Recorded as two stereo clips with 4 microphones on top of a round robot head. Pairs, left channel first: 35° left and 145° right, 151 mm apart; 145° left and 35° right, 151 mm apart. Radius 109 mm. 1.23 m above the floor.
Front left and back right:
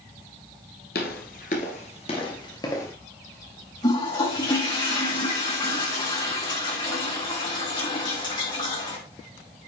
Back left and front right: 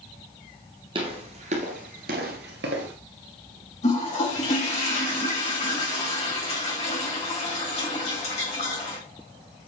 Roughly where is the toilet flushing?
Left.